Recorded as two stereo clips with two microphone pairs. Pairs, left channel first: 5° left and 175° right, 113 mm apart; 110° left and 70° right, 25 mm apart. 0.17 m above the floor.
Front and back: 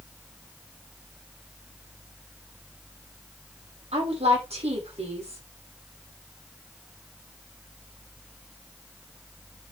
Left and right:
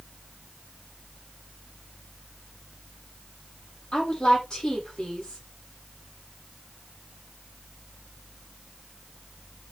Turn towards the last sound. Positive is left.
turn(degrees=165)